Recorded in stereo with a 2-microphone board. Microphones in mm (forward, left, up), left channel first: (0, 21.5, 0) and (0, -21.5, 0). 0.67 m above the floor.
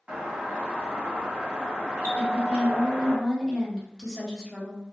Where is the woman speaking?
10° left (ahead or behind), 1.0 m.